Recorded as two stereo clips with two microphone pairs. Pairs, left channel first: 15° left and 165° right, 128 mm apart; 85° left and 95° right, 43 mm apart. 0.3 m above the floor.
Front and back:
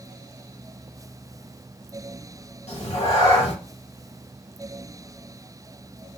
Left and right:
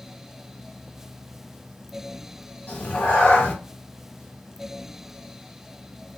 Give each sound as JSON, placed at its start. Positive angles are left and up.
{"t": 2.7, "sound": "a cat meowing", "azimuth_deg": 40, "distance_m": 1.1}